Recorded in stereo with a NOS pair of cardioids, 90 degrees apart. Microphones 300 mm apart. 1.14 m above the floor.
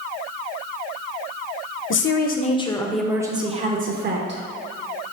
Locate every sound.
1.9 s a woman speaking: 45° left, 0.8 m; by 4.4 s 40° right, 1.1 m